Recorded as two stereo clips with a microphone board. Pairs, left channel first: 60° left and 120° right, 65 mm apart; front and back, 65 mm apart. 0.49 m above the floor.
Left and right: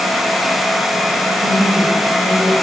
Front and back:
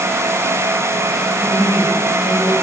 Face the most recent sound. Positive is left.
turn(degrees=-120)